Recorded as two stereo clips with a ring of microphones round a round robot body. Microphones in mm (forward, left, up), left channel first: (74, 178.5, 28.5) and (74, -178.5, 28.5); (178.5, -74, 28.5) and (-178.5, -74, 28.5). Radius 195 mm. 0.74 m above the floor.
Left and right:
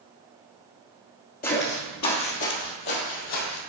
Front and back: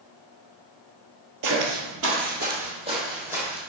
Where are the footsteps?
155° left, 1.1 m; by 3.6 s 95° left, 1.7 m.